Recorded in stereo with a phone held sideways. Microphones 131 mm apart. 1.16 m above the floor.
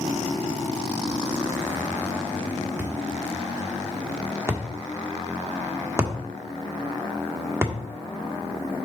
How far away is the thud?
About 1.3 m.